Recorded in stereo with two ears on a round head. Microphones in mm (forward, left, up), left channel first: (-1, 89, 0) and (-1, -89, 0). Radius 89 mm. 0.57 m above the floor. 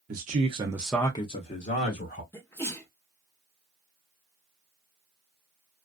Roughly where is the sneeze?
Centre.